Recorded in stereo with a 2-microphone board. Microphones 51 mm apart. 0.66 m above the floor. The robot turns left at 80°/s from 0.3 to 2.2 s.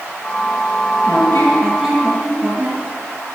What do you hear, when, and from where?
1.1 s a squeak: 60° left, 5 m; by 2.8 s 30° right, 5 m